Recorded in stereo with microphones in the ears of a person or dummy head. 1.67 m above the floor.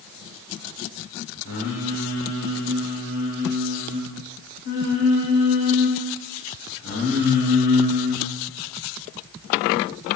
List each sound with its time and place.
1.4 s singing: 55° left (ahead or behind), 2 m